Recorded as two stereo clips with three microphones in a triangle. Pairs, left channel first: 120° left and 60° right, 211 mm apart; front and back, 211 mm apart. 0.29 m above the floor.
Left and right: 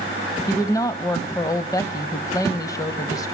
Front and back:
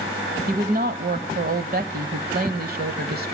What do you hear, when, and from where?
0.5 s a woman speaking: 170° right, 1.3 m